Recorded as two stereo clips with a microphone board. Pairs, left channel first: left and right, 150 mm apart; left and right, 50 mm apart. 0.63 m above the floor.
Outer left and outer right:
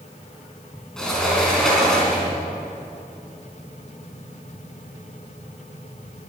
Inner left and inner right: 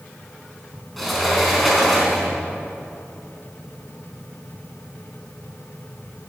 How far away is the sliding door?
About 3.5 m.